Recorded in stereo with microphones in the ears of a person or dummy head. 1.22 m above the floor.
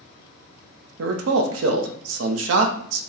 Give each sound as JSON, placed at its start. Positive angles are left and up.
{"t": 1.0, "sound": "a man speaking", "side_deg": -85, "distance_m": 0.6}